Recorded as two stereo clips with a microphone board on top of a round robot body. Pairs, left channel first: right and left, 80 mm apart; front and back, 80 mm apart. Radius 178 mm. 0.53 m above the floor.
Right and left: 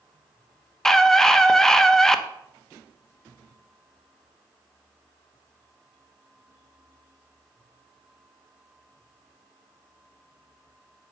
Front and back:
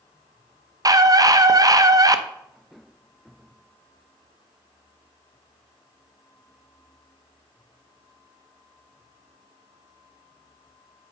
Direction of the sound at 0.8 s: 170° right.